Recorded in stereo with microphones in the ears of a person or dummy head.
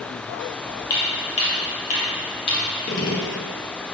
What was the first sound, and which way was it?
Footsteps, 25° left (ahead or behind).